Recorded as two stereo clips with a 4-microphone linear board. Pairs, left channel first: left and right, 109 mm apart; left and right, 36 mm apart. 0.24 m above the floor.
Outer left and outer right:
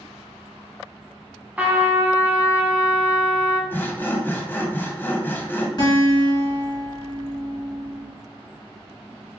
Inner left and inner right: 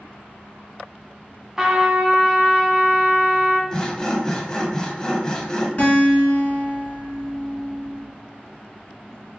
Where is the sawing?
20° left (ahead or behind), 0.5 m.